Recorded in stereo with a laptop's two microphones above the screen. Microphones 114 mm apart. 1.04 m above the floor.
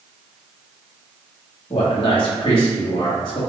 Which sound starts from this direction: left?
A man speaking, at 1.7 s.